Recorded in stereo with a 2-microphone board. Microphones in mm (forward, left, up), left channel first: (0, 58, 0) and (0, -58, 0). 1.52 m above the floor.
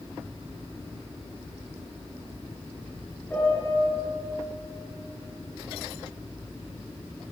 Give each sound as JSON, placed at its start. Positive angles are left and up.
{"t": 3.3, "sound": "a piano", "side_deg": 15, "distance_m": 5.0}